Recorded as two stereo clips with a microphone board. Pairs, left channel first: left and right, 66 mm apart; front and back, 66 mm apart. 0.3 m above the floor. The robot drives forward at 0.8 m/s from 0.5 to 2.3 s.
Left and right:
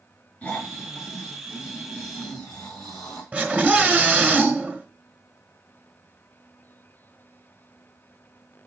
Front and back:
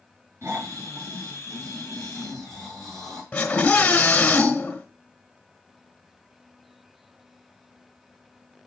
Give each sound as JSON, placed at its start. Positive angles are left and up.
{"t": 0.4, "sound": "snoring", "azimuth_deg": 150, "distance_m": 3.0}
{"t": 3.3, "sound": "a scream", "azimuth_deg": -55, "distance_m": 1.3}